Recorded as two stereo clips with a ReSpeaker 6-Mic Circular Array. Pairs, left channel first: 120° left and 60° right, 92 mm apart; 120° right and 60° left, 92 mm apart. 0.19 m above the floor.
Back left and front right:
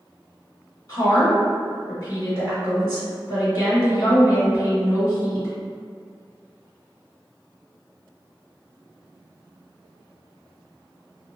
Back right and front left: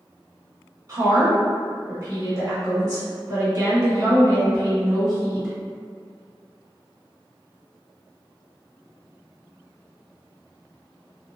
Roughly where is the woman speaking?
Left.